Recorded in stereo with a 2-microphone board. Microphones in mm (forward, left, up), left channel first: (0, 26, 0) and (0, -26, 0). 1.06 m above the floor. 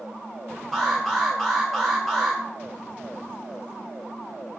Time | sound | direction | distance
0.7 | an alarm | 5° right (ahead or behind) | 1.7 m